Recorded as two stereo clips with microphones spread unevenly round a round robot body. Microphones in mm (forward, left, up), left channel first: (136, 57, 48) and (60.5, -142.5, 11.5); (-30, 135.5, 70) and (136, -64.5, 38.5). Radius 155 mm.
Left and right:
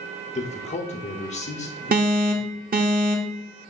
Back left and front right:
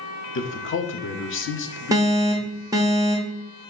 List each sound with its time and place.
0.3 s a man speaking: 125° left, 1.1 m
1.9 s an alarm: 115° right, 1.0 m